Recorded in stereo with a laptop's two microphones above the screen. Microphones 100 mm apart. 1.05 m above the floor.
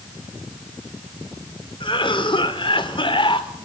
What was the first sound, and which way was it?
A cough, 60° left (ahead or behind).